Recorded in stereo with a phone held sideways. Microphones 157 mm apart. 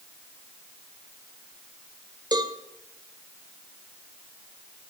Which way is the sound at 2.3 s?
25° right (ahead or behind).